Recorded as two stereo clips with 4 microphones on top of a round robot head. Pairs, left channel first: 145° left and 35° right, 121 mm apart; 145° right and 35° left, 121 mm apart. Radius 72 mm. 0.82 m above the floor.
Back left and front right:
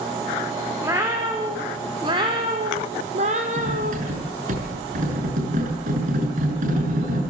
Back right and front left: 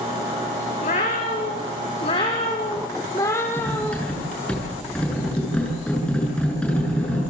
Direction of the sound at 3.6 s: 60° right.